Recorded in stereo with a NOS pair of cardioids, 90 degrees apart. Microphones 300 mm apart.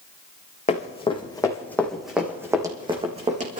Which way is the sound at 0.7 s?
25° left.